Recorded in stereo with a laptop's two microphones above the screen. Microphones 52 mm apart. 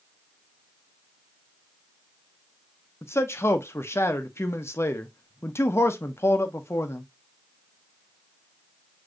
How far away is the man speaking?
About 0.6 m.